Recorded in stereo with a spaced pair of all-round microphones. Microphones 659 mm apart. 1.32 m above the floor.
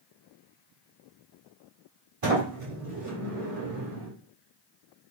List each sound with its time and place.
2.2 s a sliding door: 50° right (ahead or behind), 1.4 m